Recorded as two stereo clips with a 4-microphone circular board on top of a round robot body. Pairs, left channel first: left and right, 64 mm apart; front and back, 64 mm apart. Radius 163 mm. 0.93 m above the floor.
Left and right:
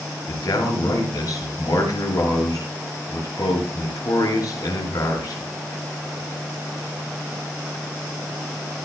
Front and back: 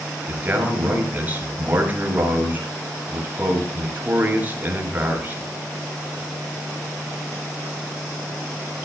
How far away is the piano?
I don't hear a piano.